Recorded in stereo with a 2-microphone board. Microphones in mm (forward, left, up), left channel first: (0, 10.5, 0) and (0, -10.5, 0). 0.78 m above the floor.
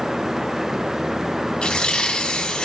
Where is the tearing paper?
50° left (ahead or behind), 1.8 m.